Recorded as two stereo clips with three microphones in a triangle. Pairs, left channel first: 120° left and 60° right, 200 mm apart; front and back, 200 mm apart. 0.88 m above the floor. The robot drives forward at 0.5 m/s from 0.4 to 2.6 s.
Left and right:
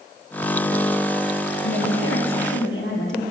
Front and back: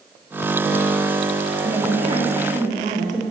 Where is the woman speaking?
110° left, 1.2 m; by 3.2 s 130° left, 1.4 m.